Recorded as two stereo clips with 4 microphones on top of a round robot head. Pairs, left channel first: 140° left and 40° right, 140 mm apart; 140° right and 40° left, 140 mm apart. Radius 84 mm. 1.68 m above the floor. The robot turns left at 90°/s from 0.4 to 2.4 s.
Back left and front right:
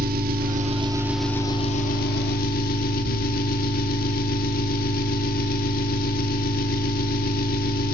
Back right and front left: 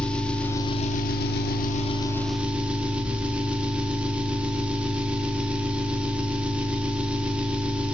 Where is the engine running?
60° right, 1.6 m; by 7.9 s 120° left, 1.6 m.